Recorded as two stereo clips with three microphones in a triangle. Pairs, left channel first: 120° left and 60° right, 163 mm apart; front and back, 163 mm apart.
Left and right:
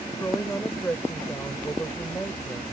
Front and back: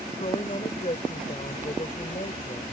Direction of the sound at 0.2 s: 45° left.